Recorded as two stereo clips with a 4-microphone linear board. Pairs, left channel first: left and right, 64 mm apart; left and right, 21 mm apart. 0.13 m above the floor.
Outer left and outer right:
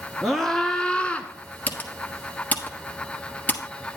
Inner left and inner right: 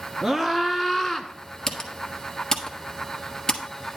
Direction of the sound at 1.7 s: 30° left (ahead or behind).